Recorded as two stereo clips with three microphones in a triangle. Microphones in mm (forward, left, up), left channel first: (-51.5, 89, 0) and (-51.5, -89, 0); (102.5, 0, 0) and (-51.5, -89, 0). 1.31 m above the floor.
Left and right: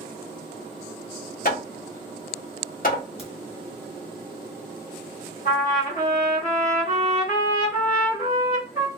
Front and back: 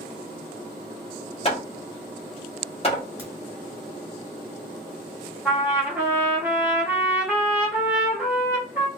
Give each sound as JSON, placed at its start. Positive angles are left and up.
{"t": 1.4, "sound": "hammering", "azimuth_deg": 75, "distance_m": 1.2}
{"t": 3.2, "sound": "a crack", "azimuth_deg": 130, "distance_m": 2.0}
{"t": 5.5, "sound": "a trumpet", "azimuth_deg": 130, "distance_m": 1.8}